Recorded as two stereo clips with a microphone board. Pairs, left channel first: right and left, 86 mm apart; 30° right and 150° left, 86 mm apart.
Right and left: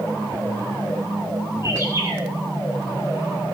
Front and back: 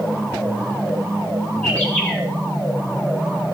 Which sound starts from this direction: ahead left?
A bird, at 1.6 s.